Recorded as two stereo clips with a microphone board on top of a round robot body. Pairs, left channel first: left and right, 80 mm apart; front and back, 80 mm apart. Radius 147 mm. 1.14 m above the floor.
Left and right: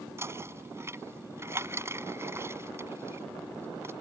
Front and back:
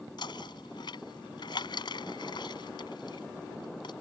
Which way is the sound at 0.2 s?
30° right.